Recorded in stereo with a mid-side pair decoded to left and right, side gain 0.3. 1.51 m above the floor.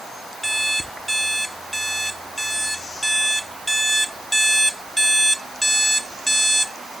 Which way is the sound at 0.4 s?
15° right.